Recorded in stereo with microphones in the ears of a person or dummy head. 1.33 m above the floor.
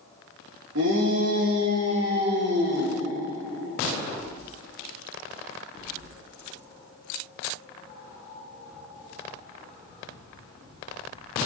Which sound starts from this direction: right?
A shout, at 0.8 s.